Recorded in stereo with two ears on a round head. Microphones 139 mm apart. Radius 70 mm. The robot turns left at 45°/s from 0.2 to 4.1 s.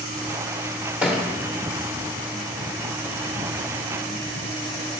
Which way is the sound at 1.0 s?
10° right (ahead or behind).